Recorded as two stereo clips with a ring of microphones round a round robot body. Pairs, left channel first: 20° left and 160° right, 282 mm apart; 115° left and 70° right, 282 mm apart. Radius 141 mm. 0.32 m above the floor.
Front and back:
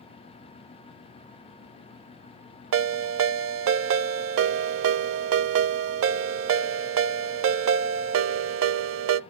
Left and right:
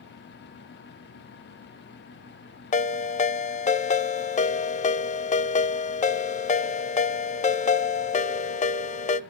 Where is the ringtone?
175° left, 0.5 m.